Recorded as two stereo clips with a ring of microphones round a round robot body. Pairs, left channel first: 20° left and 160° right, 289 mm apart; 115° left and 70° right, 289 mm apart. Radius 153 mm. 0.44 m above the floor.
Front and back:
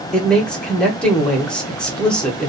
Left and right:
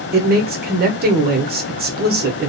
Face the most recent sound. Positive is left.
turn(degrees=-60)